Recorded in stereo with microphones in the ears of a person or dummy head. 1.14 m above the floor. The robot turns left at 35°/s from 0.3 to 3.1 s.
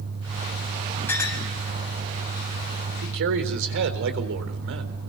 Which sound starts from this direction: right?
A man speaking, at 3.0 s.